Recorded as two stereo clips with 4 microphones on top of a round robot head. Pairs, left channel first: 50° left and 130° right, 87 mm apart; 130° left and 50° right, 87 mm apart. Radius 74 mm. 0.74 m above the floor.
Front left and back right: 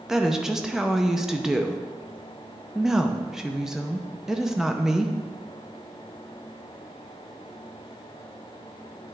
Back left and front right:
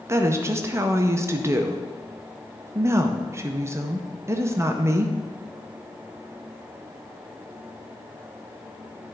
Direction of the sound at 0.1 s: 50° right.